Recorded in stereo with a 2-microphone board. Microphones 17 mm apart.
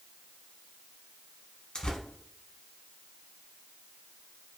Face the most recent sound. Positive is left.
turn(degrees=60)  # may be behind; listen again after turning